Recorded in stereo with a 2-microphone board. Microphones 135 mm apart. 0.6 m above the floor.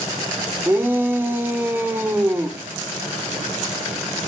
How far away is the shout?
About 1.8 m.